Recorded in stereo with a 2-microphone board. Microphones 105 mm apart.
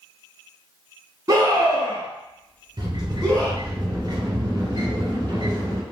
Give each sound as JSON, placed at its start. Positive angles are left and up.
{"t": 1.3, "sound": "a scream", "side_deg": -30, "distance_m": 1.4}
{"t": 2.8, "sound": "a sliding door", "side_deg": -40, "distance_m": 1.3}